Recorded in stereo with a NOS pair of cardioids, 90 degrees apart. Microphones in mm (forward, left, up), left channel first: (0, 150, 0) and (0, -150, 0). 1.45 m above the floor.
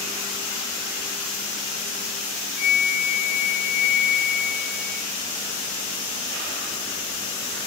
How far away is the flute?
About 0.9 m.